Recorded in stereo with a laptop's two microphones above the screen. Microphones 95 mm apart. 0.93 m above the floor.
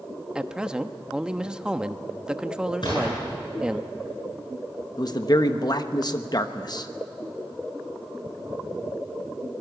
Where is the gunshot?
55° left (ahead or behind), 9 m.